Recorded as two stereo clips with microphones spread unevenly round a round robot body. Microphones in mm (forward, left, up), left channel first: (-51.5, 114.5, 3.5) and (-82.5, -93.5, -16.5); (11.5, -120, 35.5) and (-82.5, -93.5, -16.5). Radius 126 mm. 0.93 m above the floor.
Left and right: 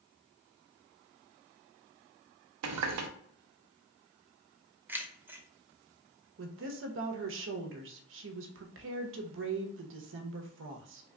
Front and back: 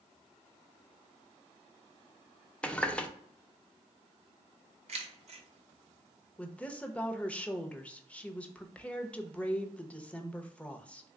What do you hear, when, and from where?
2.6 s a running tap: 90° right, 0.6 m
4.9 s keys jangling: straight behind, 0.8 m
6.4 s a woman speaking: 105° right, 0.8 m